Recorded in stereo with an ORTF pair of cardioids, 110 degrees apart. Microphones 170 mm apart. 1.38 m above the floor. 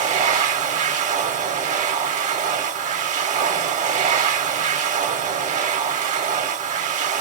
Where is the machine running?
45° right, 0.8 m.